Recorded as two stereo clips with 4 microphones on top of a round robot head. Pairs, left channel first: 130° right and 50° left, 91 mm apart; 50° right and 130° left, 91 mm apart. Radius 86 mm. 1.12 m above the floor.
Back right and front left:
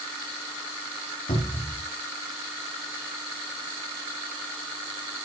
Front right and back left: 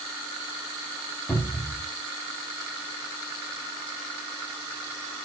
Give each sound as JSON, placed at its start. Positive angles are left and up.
{"t": 1.3, "sound": "a cupboard door", "azimuth_deg": -125, "distance_m": 3.0}